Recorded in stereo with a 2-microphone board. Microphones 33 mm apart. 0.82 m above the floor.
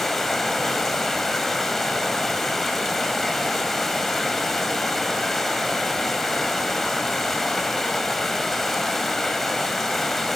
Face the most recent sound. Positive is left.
turn(degrees=10)  # may be behind; listen again after turning